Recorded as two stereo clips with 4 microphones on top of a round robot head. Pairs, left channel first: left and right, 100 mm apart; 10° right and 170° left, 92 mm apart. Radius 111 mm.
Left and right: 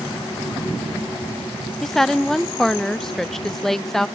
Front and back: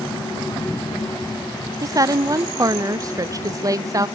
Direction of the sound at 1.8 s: 175° left.